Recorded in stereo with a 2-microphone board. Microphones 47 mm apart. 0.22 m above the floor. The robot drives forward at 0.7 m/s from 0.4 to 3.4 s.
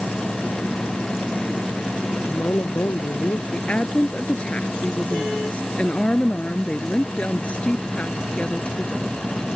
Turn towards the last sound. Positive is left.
turn(degrees=30)  # may be behind; listen again after turning